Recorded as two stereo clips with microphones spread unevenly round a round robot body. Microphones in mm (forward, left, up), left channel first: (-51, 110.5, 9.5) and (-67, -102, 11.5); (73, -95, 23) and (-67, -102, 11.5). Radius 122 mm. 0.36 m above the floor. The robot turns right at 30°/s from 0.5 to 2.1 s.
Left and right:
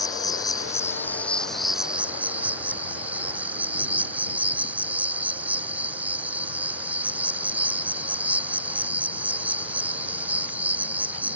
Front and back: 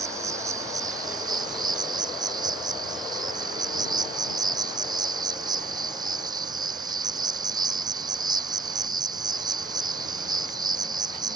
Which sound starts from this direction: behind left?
An insect, at 0.0 s.